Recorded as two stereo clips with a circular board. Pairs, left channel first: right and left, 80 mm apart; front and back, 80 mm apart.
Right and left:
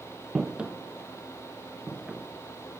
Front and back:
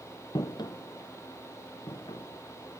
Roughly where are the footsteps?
Ahead.